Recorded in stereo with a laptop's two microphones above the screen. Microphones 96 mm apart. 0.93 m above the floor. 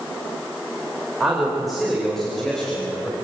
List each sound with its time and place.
1.2 s a man speaking: 5° right (ahead or behind), 3.5 m; by 3.1 s 10° left (ahead or behind), 4.5 m